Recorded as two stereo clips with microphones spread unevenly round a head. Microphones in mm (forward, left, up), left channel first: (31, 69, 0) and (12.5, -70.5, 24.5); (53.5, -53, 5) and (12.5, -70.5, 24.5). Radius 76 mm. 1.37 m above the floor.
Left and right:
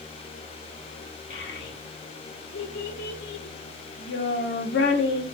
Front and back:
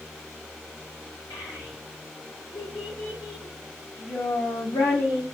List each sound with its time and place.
1.3 s a child speaking: 80° left, 1.8 m